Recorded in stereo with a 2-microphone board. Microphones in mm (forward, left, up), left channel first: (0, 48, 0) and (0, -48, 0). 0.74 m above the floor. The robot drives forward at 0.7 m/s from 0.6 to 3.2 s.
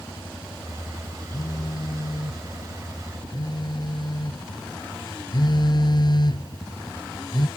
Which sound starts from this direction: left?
A phone buzzing, at 1.3 s.